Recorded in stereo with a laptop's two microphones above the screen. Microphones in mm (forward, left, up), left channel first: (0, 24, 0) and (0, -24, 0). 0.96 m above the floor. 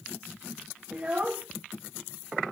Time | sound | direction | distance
0.9 | a child speaking | 30° right (ahead or behind) | 0.9 m